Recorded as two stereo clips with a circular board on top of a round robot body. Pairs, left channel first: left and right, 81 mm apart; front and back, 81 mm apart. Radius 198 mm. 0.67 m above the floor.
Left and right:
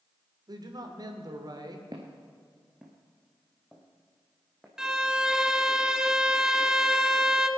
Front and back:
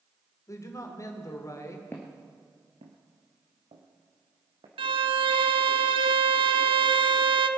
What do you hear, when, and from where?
0.5 s a man speaking: 50° right, 2.5 m
1.9 s footsteps: 60° right, 0.6 m; by 4.7 s straight behind, 2.5 m
4.8 s a violin: 175° right, 0.6 m